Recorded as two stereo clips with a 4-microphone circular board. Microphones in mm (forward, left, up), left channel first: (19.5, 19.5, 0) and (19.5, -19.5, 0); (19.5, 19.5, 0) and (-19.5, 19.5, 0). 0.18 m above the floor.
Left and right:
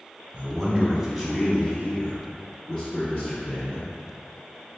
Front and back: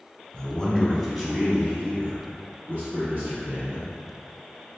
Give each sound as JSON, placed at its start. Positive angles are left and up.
{"t": 0.3, "sound": "a man speaking", "azimuth_deg": -45, "distance_m": 1.1}